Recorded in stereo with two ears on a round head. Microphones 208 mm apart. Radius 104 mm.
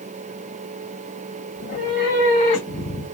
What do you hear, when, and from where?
1.6 s a cat meowing: 40° left (ahead or behind), 2 m; by 3.1 s 25° left (ahead or behind), 1.1 m